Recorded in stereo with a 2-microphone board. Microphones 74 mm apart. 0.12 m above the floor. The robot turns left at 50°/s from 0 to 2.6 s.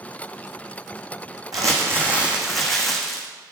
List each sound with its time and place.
1.5 s crumpling: 130° right, 1.3 m; by 3.3 s 175° left, 1.3 m